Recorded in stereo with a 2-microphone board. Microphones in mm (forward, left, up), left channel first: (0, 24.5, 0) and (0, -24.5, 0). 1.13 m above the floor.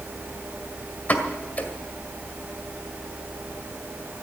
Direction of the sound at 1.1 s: 35° left (ahead or behind).